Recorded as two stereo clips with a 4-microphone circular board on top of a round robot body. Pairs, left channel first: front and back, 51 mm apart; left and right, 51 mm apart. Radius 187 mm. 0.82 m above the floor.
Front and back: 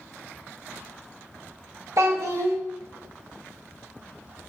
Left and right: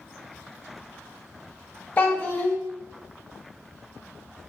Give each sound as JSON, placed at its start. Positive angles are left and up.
{"t": 2.0, "sound": "a child speaking", "azimuth_deg": 150, "distance_m": 0.6}